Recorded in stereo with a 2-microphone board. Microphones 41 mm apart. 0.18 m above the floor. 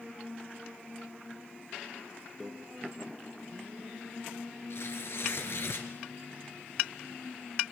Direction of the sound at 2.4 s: 5° right (ahead or behind).